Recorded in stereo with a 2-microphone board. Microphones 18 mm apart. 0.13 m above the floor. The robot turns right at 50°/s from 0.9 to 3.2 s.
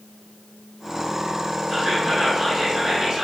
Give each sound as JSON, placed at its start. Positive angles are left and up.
{"t": 1.7, "sound": "whispering", "azimuth_deg": -155, "distance_m": 1.9}